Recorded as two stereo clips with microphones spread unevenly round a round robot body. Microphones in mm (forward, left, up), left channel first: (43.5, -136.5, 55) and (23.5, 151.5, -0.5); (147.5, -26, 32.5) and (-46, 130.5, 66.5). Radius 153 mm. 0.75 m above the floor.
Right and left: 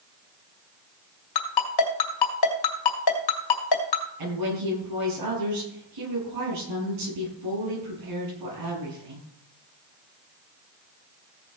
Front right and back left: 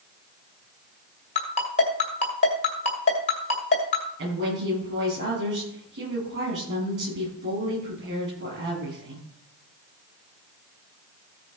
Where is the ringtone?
105° right, 1.9 m.